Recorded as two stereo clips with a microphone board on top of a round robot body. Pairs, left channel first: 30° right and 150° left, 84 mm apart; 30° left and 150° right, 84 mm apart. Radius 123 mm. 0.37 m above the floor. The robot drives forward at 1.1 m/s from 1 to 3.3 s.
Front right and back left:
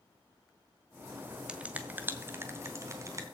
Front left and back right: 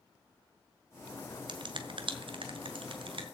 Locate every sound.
1.5 s a finger snap: 130° right, 1.9 m; by 3.2 s 155° right, 3.5 m